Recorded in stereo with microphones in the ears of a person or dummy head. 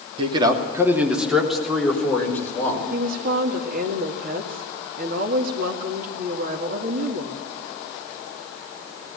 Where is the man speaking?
30° right (ahead or behind), 2.5 m; by 2.8 s 15° left (ahead or behind), 5 m.